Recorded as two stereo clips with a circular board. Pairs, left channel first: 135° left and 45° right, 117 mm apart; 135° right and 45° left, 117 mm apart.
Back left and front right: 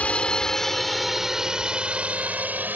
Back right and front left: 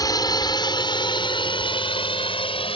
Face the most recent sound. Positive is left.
turn(degrees=-115)